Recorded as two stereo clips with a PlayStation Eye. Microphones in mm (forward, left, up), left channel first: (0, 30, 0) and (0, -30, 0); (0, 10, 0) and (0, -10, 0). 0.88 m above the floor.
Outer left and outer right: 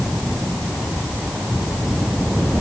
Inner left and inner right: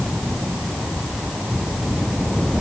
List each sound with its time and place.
Only background noise.